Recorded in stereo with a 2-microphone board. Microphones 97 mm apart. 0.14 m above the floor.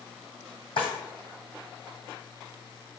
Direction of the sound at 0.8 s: 65° left (ahead or behind).